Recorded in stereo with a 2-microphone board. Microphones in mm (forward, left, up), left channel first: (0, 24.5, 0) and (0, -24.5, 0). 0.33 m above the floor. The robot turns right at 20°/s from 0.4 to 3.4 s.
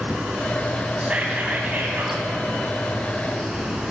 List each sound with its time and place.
1.0 s whispering: 25° right (ahead or behind), 3 m; by 2.2 s 45° right (ahead or behind), 3 m